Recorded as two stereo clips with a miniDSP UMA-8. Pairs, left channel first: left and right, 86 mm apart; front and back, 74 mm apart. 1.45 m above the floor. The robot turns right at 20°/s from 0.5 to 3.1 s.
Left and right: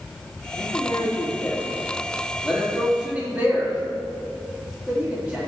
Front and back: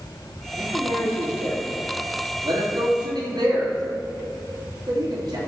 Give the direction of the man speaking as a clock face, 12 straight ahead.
7 o'clock.